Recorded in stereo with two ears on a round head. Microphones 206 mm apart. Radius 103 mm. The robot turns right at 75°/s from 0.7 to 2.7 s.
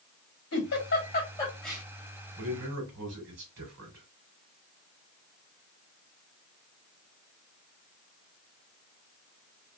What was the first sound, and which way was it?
A giggle, 75° left (ahead or behind).